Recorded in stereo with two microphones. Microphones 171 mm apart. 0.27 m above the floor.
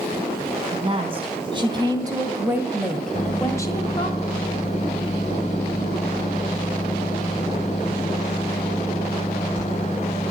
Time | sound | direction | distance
0.7 | a woman speaking | 35° right (ahead or behind) | 3 m
3.1 | a microwave | 45° left (ahead or behind) | 1.2 m